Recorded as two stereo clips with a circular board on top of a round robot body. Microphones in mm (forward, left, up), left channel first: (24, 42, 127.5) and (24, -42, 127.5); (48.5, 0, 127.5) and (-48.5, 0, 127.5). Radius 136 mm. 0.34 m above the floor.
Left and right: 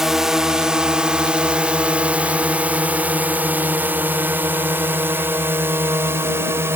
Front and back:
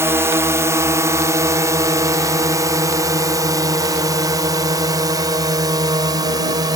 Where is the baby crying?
No baby crying in this recording.